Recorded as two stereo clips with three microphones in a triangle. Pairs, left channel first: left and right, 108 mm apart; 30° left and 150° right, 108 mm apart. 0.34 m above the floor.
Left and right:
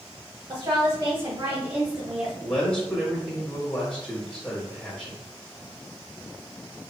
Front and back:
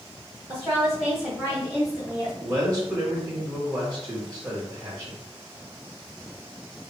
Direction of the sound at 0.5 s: 80° right.